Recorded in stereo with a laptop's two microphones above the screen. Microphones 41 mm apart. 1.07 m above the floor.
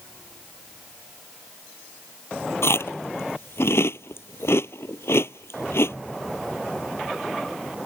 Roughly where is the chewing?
Left.